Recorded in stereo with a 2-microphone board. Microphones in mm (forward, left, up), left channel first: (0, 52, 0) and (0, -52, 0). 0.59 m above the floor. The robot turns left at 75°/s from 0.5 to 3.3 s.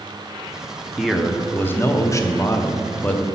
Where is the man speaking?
170° right, 0.7 m; by 3.2 s 20° left, 0.7 m.